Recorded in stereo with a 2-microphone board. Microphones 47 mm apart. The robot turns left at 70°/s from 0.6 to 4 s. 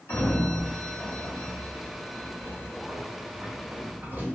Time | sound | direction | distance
0.1 | a sliding door | 50° left (ahead or behind) | 1.3 m